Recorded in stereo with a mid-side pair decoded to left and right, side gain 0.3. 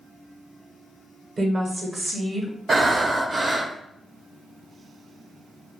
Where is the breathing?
40° right, 0.9 m.